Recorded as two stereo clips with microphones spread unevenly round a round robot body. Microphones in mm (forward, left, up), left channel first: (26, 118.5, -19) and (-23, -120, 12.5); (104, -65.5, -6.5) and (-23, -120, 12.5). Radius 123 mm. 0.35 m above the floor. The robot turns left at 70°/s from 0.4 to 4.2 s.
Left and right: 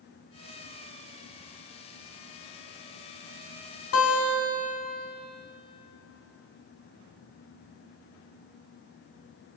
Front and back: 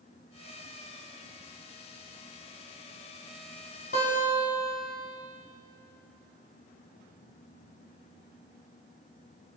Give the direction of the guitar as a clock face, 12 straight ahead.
10 o'clock.